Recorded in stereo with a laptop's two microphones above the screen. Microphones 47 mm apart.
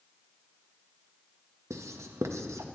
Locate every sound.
1.7 s writing: 85° right, 0.7 m